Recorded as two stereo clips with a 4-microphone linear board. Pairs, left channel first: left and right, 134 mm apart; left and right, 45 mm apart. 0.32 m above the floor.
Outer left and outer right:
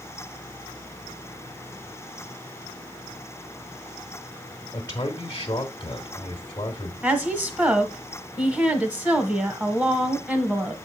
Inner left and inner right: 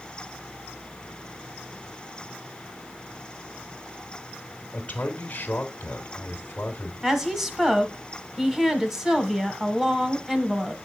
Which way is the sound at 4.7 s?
30° left (ahead or behind).